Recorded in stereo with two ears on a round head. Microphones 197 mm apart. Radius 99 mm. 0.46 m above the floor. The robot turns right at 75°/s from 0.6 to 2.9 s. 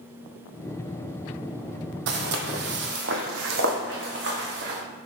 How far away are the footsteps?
About 0.7 m.